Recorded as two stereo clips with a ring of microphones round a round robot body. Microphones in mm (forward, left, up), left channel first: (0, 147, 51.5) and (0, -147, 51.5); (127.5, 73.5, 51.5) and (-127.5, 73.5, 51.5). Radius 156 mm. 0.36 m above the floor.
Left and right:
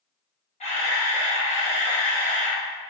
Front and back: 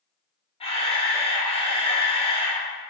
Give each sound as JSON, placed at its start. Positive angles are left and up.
{"t": 0.6, "sound": "a camera shutter", "azimuth_deg": 45, "distance_m": 0.8}